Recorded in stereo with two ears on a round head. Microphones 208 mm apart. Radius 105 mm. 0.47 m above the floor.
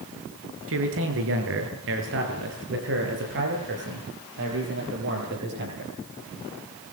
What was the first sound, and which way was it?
A man speaking, 65° right (ahead or behind).